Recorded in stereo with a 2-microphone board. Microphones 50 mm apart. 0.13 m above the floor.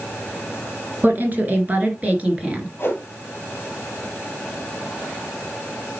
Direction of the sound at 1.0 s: 40° right (ahead or behind).